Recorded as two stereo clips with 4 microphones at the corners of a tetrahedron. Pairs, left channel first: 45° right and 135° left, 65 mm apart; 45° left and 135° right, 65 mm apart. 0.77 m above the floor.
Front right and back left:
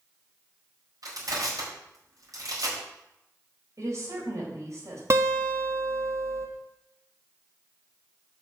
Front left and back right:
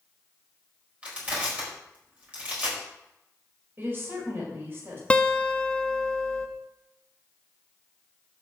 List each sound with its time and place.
1.0 s crushing: 155° left, 4.5 m
3.8 s a woman speaking: 170° left, 4 m
5.1 s a guitar: 115° left, 1.3 m